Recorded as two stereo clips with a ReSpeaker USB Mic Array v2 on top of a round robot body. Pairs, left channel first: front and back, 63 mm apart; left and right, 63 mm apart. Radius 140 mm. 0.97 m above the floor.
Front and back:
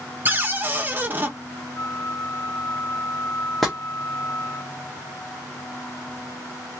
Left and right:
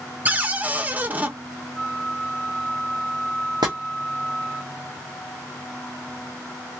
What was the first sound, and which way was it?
A cupboard door, 140° right.